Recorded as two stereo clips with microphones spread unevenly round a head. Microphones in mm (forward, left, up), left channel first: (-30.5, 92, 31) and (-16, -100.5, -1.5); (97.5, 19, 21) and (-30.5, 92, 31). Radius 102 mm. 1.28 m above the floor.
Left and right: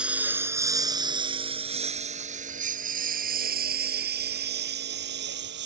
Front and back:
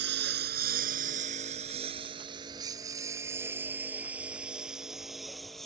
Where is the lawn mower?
170° right; by 5.7 s 120° right.